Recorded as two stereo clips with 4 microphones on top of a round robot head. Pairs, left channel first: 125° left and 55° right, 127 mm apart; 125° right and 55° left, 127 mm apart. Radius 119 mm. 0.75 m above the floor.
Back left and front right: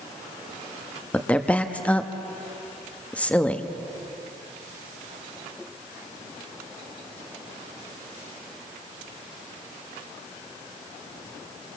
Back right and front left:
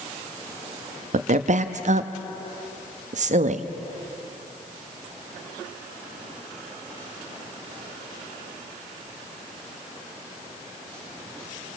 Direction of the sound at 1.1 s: 50° left.